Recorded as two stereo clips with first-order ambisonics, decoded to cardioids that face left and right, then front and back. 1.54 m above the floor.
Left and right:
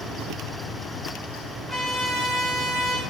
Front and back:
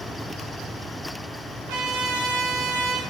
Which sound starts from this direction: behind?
A trumpet, at 1.7 s.